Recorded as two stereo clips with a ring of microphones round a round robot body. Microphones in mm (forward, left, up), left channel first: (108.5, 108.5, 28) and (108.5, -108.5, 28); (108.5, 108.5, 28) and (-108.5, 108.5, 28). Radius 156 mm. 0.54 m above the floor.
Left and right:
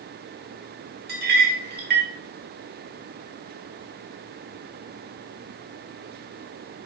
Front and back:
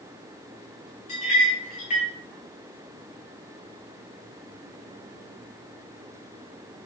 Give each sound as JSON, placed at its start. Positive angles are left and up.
{"t": 1.1, "sound": "a clink", "azimuth_deg": -60, "distance_m": 1.0}